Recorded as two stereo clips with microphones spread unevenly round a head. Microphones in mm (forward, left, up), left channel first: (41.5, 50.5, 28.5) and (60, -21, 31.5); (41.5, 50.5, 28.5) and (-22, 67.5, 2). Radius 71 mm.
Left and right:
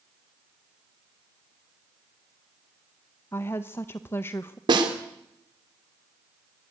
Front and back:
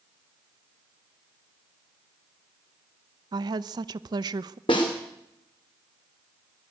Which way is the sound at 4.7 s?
65° right.